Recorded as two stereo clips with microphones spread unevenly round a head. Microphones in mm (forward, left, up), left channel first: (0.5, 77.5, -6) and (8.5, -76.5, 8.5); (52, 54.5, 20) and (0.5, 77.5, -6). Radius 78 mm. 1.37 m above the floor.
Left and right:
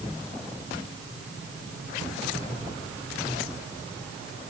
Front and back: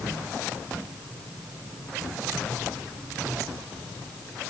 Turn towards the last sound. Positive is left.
No sound to turn to.